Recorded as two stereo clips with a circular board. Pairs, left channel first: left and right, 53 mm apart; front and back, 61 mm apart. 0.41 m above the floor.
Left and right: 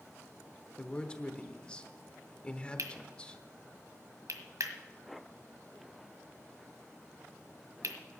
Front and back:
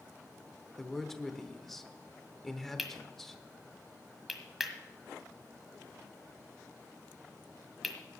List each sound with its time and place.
0.8 s a man speaking: 80° left, 1.0 m
2.8 s cutlery clinking: 90° right, 1.5 m